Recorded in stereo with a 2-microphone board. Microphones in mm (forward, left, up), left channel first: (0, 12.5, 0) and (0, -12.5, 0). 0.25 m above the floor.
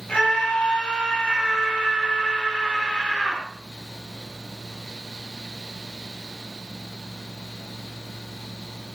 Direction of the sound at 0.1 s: 45° left (ahead or behind).